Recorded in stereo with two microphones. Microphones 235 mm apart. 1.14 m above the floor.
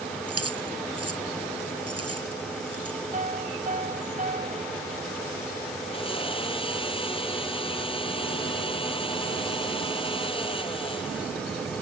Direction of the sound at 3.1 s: 35° right (ahead or behind).